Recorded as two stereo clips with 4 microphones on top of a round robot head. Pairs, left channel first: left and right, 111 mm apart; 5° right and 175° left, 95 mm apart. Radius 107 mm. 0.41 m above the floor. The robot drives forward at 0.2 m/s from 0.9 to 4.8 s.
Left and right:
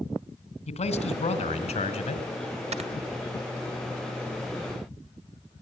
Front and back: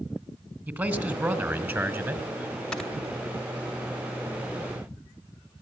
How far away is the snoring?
About 2.5 m.